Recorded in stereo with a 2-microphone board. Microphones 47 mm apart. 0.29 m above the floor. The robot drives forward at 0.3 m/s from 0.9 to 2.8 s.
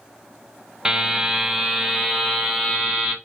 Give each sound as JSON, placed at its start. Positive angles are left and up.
{"t": 0.8, "sound": "a buzzer", "side_deg": -15, "distance_m": 0.5}